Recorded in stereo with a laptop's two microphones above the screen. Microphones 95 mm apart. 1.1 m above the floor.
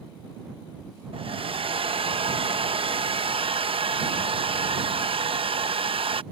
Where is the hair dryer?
75° right (ahead or behind).